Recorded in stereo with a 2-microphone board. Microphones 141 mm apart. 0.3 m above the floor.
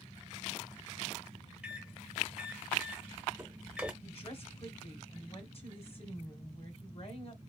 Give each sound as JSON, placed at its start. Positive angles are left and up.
{"t": 1.6, "sound": "a microwave", "side_deg": -10, "distance_m": 0.7}
{"t": 4.0, "sound": "a woman speaking", "side_deg": 45, "distance_m": 1.5}